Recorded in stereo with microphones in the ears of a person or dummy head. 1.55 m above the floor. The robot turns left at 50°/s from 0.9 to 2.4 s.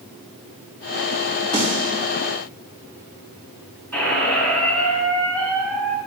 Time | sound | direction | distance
1.5 | a snare drum | 20° left (ahead or behind) | 3.5 m
3.9 | a squeak | 5° left (ahead or behind) | 3 m